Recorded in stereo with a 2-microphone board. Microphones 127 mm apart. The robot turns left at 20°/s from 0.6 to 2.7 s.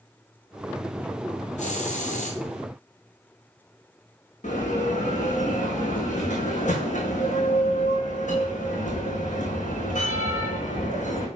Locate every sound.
1.6 s a hiss: 75° left (ahead or behind), 1.7 m
4.4 s a bell: 80° left, 2.5 m